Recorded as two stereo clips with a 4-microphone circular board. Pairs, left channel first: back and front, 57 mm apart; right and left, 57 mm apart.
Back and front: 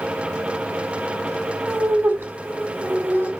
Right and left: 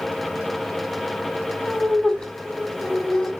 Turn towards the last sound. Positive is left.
turn(degrees=-15)